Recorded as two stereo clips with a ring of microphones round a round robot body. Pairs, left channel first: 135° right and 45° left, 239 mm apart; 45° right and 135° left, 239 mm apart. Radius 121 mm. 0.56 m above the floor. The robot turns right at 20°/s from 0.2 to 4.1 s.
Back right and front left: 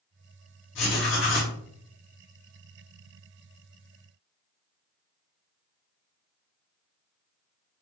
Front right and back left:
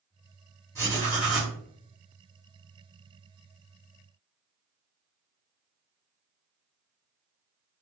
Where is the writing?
150° right, 1.1 m; by 1.6 s 135° right, 1.1 m.